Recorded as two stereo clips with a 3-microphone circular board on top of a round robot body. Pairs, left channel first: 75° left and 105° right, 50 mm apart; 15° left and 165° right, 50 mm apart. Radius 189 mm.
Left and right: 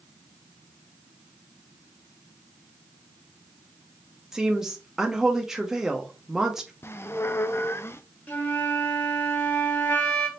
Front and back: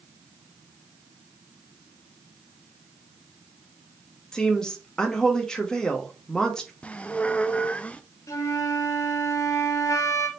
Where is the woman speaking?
35° right, 1.0 m.